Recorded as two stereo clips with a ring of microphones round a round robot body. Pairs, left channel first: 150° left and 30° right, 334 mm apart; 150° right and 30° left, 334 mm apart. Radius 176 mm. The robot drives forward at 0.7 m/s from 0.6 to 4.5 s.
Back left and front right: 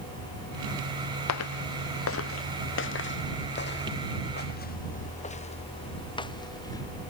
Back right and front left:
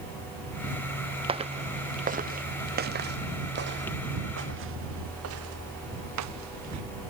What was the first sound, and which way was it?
Footsteps, 105° left.